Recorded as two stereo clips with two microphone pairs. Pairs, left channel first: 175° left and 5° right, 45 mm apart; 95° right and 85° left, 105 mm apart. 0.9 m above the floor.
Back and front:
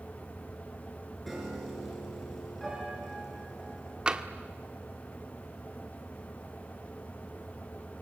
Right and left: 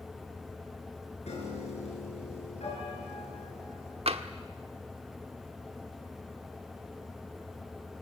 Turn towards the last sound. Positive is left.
turn(degrees=65)